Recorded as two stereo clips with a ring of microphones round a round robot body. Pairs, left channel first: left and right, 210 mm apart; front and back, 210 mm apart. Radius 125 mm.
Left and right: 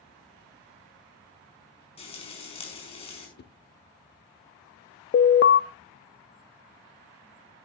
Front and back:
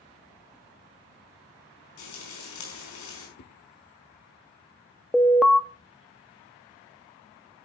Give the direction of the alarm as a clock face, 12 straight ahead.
9 o'clock.